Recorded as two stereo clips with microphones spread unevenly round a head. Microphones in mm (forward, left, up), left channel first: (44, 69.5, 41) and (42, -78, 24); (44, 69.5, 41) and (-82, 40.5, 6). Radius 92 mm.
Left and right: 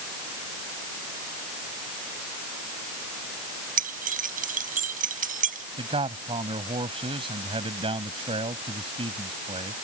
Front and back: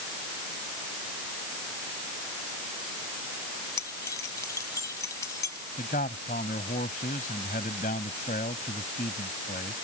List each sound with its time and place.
3.8 s keys jangling: 60° right
5.8 s a man speaking: 35° right